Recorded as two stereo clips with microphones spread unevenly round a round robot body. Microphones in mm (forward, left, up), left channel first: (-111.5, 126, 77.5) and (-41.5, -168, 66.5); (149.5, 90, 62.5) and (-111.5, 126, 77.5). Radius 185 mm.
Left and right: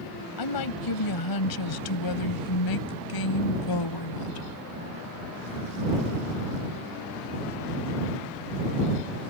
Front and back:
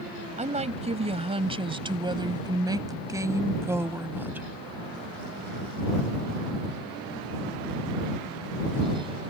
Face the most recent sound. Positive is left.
turn(degrees=90)